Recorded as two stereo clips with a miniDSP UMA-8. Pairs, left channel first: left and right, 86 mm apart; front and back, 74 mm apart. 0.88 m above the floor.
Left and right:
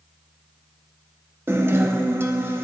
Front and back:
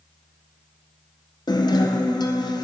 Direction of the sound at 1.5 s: 25° right.